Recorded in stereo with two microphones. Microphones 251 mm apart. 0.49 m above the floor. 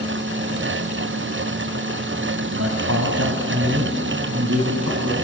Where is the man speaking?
70° right (ahead or behind), 2.5 m; by 5.2 s 75° right (ahead or behind), 4 m.